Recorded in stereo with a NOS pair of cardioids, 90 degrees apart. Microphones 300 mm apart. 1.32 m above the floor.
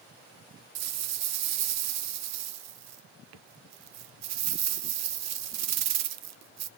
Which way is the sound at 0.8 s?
65° right.